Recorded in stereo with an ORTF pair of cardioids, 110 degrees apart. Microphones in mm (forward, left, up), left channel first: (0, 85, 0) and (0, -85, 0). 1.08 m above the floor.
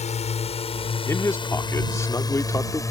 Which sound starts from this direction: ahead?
A man speaking, at 1.1 s.